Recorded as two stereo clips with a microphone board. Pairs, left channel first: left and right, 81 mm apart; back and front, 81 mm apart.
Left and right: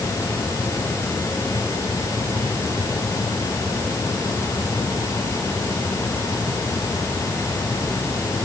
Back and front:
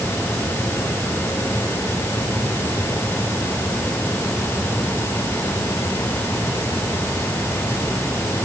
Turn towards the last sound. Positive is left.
No sound to turn to.